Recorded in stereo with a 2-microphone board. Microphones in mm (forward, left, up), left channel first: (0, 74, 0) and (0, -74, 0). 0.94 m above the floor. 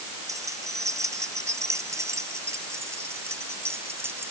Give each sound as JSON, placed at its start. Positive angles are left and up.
{"t": 0.3, "sound": "keys jangling", "side_deg": -20}